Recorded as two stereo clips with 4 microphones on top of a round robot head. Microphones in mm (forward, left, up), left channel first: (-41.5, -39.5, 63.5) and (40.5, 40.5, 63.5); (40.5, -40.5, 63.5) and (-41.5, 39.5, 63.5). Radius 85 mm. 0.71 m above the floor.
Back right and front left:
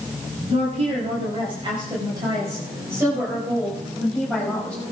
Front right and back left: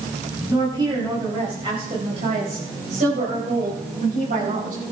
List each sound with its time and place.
0.5 s a woman speaking: 75° left, 5.5 m; by 4.8 s 140° left, 5.5 m